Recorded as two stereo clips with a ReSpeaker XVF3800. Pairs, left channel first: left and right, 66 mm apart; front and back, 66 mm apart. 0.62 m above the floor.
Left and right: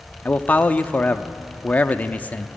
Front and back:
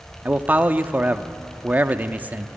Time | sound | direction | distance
0.2 | a man speaking | 135° left | 0.8 m